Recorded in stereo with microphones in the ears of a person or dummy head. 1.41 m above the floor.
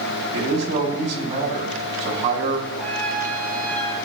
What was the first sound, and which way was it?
A man speaking, 35° right (ahead or behind).